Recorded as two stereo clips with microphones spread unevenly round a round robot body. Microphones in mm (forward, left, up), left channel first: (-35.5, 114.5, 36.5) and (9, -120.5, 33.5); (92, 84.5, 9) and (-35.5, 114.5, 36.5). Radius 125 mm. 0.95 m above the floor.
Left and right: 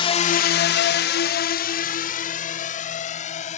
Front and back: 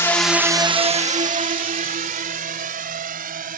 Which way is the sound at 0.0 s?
40° left.